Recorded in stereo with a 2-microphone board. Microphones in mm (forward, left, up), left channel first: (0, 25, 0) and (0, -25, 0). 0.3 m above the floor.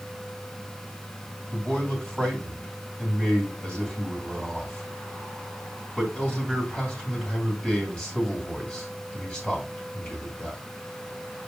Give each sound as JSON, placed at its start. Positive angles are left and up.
{"t": 1.5, "sound": "a man speaking", "side_deg": 20, "distance_m": 2.5}